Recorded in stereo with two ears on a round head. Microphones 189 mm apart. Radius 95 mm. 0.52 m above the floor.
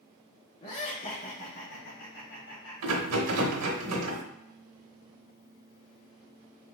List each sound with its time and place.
0.6 s laughter: 30° left (ahead or behind), 1.0 m; by 2.7 s 65° left (ahead or behind), 2.5 m
2.8 s a rattle: 85° right, 0.8 m